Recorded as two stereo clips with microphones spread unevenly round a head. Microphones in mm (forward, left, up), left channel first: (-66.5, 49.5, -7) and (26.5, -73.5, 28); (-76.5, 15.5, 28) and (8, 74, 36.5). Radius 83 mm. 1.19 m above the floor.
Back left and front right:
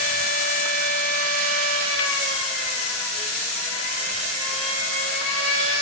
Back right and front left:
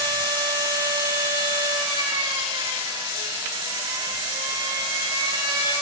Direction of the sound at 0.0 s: 75° left.